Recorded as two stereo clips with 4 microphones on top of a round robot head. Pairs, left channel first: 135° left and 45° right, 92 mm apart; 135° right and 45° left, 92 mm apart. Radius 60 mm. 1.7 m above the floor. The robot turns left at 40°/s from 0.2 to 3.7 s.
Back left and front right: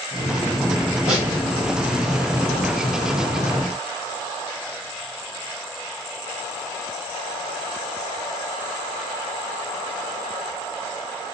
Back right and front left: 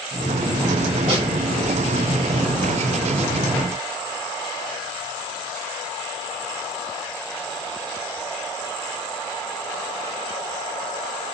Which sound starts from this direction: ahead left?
A snare drum, at 1.1 s.